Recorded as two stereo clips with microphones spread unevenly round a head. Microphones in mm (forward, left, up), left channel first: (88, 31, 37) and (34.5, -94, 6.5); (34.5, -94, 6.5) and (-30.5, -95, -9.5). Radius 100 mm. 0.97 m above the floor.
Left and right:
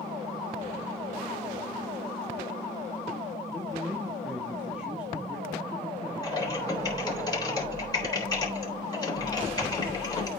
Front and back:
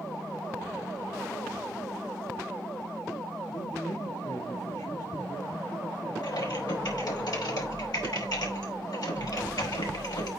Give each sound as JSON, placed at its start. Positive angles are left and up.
{"t": 3.5, "sound": "a man speaking", "azimuth_deg": -30, "distance_m": 1.5}
{"t": 6.2, "sound": "typing on a keyboard", "azimuth_deg": 5, "distance_m": 3.5}